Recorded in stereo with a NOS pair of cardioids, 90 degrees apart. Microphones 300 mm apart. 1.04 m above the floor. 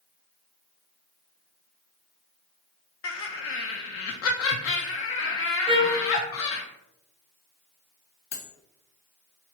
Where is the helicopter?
I don't hear a helicopter.